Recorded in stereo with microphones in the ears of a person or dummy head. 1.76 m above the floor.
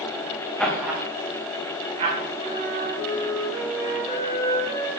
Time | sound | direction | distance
0.6 | laughter | centre (ahead or behind) | 1.1 m
2.4 | a flute | 45° right (ahead or behind) | 4.5 m